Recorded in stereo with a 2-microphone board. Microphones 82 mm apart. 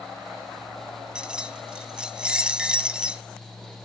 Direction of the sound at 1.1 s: 10° right (ahead or behind).